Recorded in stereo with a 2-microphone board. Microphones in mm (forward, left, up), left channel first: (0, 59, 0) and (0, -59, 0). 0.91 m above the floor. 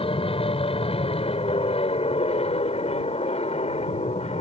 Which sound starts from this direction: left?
An aircraft, at 0.0 s.